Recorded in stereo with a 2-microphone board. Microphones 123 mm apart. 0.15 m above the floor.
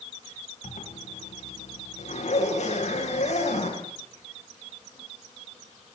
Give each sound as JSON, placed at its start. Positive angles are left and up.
{"t": 0.6, "sound": "a zipper", "side_deg": 70, "distance_m": 7.5}